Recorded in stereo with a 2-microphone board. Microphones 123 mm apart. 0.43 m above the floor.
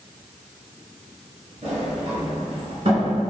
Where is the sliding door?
50° right (ahead or behind), 1.2 m.